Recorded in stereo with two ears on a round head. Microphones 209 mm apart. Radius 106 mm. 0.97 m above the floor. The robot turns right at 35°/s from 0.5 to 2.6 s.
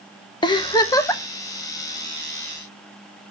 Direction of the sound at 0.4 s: 20° left (ahead or behind).